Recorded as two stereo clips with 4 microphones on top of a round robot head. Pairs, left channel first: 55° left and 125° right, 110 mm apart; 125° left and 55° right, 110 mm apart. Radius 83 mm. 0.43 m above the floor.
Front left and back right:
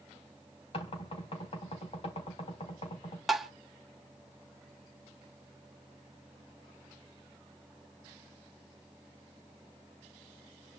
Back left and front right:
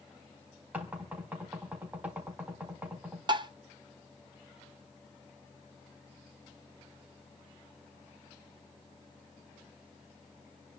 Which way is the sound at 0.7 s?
25° left.